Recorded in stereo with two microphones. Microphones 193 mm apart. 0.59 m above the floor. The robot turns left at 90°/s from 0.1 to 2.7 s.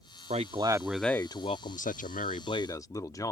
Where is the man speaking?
120° right; by 3.3 s 25° left.